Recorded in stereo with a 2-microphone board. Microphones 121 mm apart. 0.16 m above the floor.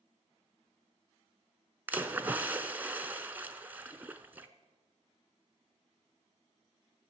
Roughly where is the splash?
Centre.